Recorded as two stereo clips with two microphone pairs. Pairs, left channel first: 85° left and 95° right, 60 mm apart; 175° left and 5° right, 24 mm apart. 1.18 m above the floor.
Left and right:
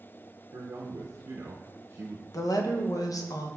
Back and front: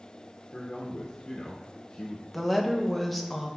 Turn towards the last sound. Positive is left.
turn(degrees=85)